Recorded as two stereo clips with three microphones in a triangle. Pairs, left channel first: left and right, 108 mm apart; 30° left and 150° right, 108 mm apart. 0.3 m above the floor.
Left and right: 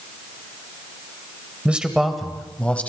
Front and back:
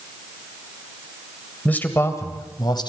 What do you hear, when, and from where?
1.6 s a man speaking: 30° right, 1.6 m; by 2.9 s 20° left, 2 m